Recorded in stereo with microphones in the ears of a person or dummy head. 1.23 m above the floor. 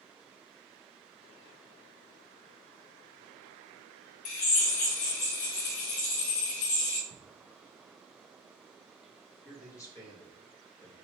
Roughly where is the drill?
Left.